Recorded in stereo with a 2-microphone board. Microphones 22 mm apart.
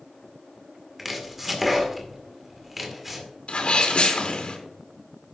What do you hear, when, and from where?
1.0 s chopping: 10° right (ahead or behind), 2 m
3.5 s a sneeze: 55° left (ahead or behind), 3 m